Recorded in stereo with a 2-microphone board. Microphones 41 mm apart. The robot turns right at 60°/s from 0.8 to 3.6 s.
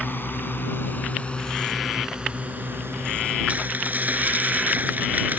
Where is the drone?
50° left (ahead or behind); by 5.4 s 80° right.